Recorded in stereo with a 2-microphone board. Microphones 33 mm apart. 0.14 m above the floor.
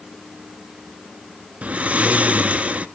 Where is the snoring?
40° right (ahead or behind), 0.7 m.